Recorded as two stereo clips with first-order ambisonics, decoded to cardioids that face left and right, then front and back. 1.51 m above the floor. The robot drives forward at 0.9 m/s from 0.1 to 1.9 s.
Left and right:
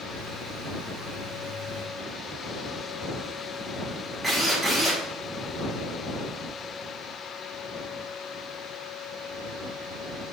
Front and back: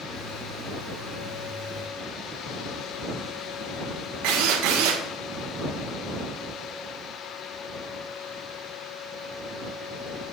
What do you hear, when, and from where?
4.2 s a drill: 170° right, 1.8 m